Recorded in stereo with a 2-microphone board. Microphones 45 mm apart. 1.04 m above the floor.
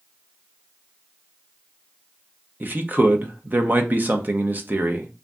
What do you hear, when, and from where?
2.6 s a man speaking: 40° right (ahead or behind), 0.7 m